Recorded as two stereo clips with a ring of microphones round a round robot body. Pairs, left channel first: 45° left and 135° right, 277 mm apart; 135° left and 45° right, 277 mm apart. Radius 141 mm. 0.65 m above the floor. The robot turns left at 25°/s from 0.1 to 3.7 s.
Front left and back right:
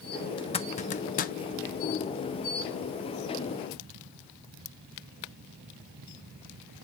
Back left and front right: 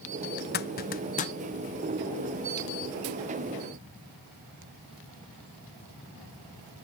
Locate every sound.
0.4 s a zipper: 110° left, 0.7 m; by 1.4 s 85° left, 0.7 m